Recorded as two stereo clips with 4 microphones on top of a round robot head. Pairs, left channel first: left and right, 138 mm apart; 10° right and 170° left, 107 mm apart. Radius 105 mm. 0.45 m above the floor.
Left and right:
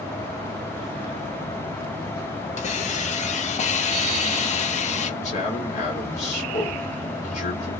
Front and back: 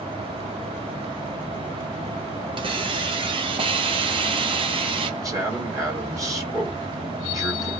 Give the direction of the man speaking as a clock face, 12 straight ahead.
8 o'clock.